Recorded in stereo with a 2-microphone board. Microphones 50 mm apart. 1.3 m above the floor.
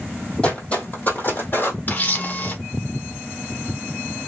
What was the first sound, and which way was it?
Footsteps, 25° left (ahead or behind).